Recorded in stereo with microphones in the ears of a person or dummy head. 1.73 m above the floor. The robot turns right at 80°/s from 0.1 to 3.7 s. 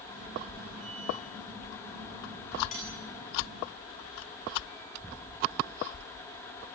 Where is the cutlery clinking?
45° left (ahead or behind), 8.5 m; by 2.9 s 25° left (ahead or behind), 8.5 m.